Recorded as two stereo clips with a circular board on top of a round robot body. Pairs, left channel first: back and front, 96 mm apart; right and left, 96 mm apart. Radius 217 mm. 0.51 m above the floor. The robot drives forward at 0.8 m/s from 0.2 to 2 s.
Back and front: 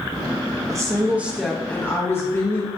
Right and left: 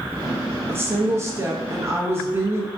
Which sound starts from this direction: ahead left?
A woman speaking, at 0.7 s.